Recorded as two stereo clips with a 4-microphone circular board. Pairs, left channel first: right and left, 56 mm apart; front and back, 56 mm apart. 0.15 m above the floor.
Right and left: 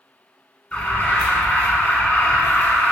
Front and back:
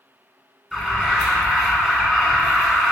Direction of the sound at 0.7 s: 100° right.